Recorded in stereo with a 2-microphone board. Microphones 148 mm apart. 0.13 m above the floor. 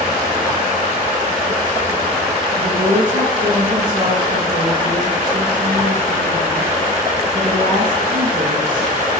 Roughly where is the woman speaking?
Right.